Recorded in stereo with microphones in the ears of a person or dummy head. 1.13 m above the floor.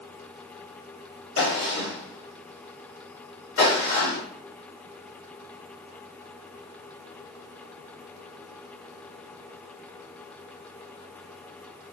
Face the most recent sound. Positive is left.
turn(degrees=90)